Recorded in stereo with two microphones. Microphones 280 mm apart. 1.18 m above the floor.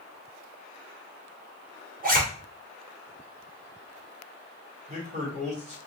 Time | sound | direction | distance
2.0 | a zipper | 30° right (ahead or behind) | 1.0 m
4.9 | a man speaking | 25° right (ahead or behind) | 1.9 m